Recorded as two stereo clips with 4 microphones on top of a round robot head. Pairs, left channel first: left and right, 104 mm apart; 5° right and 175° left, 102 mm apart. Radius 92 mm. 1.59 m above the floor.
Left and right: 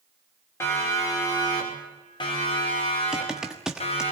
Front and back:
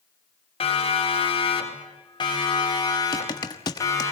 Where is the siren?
20° left, 5.5 m; by 4.1 s 55° left, 6.5 m.